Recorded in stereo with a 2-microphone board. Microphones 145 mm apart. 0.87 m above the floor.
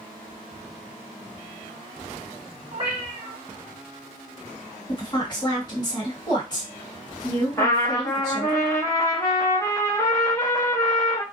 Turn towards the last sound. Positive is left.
turn(degrees=20)  # may be behind; listen again after turning